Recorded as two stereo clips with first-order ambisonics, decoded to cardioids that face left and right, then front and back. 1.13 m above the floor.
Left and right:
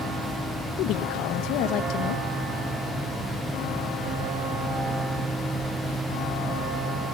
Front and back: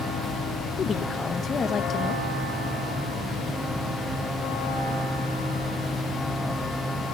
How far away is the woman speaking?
About 1.2 m.